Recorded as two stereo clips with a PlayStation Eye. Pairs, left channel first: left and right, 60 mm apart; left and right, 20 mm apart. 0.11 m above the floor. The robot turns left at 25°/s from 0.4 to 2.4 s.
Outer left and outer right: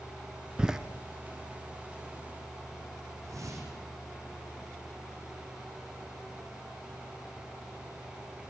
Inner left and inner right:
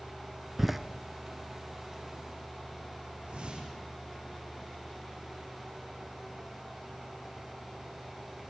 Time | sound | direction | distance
0.6 | a door slam | 15° right (ahead or behind) | 1.2 m
3.2 | a whoosh | 60° right (ahead or behind) | 5.5 m